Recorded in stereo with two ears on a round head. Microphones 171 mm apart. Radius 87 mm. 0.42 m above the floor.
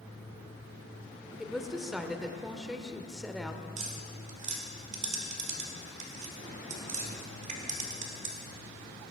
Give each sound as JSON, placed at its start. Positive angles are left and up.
{"t": 1.4, "sound": "a woman speaking", "side_deg": 0, "distance_m": 1.0}
{"t": 3.8, "sound": "tapping", "side_deg": -40, "distance_m": 1.9}